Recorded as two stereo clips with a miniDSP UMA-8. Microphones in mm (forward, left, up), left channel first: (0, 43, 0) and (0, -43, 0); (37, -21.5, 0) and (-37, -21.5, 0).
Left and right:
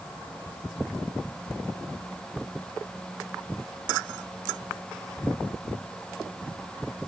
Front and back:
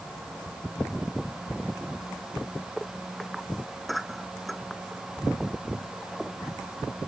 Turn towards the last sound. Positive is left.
No sound to turn to.